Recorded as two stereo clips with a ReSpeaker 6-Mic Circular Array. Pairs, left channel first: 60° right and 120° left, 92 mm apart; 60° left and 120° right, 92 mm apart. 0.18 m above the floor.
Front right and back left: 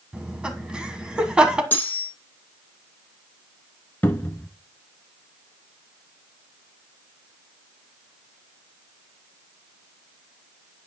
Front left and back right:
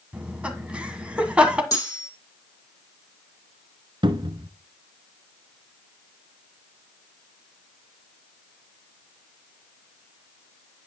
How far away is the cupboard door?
About 1.1 m.